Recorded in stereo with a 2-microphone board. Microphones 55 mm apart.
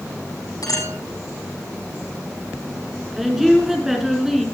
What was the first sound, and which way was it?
A clink, 85° left.